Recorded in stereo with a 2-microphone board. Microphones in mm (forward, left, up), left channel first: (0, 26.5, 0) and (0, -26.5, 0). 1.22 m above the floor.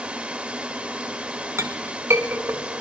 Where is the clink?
60° right (ahead or behind), 1.1 m.